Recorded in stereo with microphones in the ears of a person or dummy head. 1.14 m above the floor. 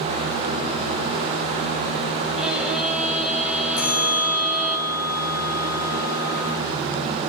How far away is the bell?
About 3 m.